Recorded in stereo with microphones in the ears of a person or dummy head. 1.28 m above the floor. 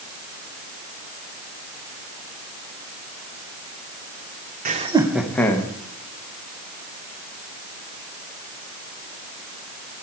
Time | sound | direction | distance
4.7 | laughter | 40° right (ahead or behind) | 0.7 m